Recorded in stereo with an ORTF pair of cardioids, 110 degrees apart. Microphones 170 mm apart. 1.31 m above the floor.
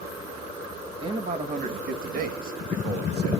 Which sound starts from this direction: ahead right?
A man speaking, at 1.0 s.